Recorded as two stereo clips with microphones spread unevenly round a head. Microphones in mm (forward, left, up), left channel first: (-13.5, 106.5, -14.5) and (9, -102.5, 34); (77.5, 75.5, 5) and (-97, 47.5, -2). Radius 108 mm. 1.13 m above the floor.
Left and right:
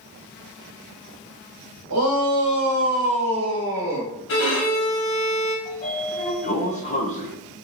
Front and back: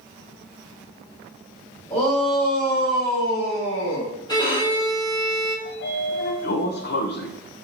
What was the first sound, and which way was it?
A shout, 50° right.